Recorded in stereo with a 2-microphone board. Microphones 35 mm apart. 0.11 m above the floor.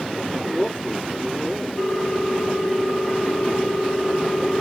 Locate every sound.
0.3 s a man speaking: 25° right (ahead or behind), 5.5 m
1.8 s a ringtone: 30° right (ahead or behind), 3.5 m